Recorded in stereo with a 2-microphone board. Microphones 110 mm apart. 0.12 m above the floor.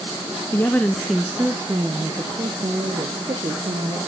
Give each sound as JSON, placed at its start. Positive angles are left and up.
{"t": 0.5, "sound": "a woman speaking", "side_deg": 25, "distance_m": 1.1}